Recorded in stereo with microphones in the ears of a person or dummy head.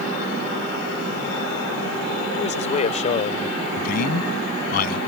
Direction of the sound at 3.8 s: 55° left (ahead or behind).